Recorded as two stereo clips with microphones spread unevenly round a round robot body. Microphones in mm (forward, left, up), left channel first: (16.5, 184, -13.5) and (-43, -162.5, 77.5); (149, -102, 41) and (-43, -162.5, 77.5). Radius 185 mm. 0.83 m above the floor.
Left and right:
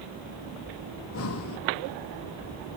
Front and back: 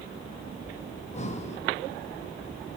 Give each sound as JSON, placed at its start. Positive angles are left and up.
{"t": 0.9, "sound": "breathing", "azimuth_deg": 55, "distance_m": 1.3}